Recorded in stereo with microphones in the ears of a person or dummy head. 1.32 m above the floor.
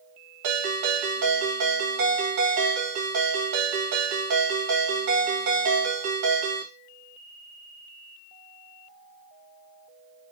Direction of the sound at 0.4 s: 85° right.